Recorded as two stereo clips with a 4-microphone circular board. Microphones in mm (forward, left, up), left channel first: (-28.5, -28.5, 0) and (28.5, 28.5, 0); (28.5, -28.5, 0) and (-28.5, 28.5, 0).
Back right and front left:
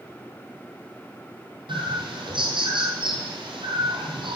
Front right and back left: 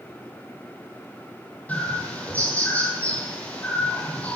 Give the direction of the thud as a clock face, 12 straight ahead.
No thud in this recording.